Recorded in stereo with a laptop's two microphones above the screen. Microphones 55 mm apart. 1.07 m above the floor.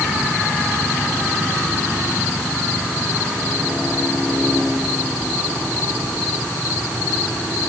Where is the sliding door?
No sliding door in this recording.